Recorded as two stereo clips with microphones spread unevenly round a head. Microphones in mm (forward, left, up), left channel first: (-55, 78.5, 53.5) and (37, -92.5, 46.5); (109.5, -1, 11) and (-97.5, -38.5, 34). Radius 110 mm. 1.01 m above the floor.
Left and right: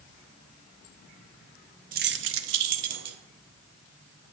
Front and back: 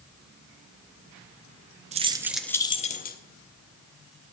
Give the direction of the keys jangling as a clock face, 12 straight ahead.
4 o'clock.